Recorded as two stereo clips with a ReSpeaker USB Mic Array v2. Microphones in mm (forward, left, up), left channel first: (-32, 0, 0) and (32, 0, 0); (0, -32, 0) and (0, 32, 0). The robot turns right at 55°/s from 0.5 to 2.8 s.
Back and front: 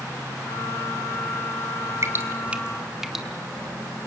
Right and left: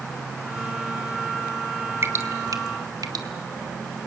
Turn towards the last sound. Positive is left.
turn(degrees=85)